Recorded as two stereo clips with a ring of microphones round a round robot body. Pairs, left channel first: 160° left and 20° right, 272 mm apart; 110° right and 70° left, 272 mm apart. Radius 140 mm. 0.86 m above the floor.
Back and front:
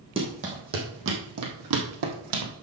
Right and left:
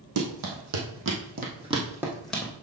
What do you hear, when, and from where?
0.2 s running footsteps: 50° left, 3 m; by 2.5 s 30° right, 2.5 m